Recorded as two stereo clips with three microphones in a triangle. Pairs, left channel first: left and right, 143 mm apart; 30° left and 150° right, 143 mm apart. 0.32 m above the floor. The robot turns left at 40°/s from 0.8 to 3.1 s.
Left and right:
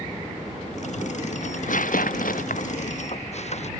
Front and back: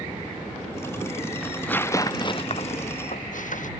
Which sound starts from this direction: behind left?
Tearing paper, at 1.4 s.